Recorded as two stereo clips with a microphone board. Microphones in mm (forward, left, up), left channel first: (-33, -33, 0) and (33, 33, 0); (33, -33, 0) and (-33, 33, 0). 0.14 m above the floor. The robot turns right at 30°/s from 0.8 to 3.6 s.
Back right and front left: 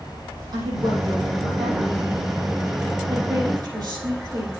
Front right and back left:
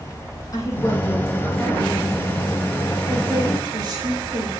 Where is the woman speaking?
5° left, 5 m; by 4.5 s 90° left, 5 m.